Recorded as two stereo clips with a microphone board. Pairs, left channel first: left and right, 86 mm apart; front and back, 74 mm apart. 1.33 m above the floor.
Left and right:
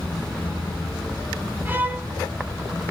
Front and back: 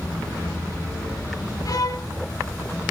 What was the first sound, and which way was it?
A violin, 25° right.